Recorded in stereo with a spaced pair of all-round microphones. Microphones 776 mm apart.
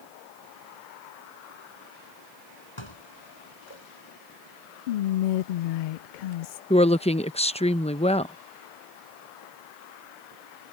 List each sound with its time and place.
2.8 s dishes clattering: 35° left (ahead or behind)
4.9 s whispering: 80° left
6.7 s a woman speaking: 10° left (ahead or behind)